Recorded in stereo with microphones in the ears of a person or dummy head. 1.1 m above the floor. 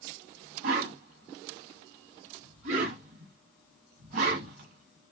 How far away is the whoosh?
About 1.5 m.